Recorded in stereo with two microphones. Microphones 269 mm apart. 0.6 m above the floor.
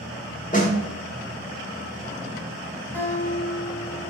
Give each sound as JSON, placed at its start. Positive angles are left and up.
{"t": 0.5, "sound": "a snare drum", "side_deg": 30, "distance_m": 1.4}
{"t": 2.9, "sound": "a guitar", "side_deg": 5, "distance_m": 2.5}